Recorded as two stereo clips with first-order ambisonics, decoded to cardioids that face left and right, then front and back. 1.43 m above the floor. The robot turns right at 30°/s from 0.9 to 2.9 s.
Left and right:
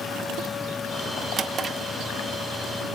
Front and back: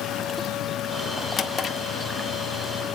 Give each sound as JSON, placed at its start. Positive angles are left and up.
{"t": 1.4, "sound": "a drawer", "azimuth_deg": -55, "distance_m": 0.9}